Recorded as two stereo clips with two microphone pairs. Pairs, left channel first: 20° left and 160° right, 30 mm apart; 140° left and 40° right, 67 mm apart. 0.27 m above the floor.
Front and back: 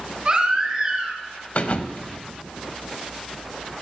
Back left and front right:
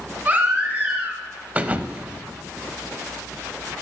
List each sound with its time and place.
0.2 s a baby crying: 105° right, 1.7 m
1.6 s a thud: 20° left, 0.5 m